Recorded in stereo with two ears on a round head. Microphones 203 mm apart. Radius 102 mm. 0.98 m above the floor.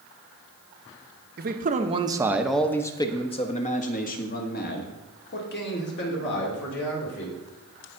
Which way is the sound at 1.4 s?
45° right (ahead or behind).